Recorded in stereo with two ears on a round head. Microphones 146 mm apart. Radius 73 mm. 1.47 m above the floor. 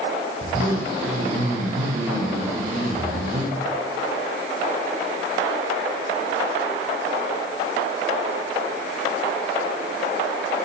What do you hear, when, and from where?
0.4 s a zipper: 50° right (ahead or behind), 4.5 m